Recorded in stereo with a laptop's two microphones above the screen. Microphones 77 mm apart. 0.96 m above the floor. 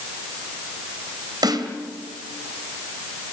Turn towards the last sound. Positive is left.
turn(degrees=-65)  # may be behind; listen again after turning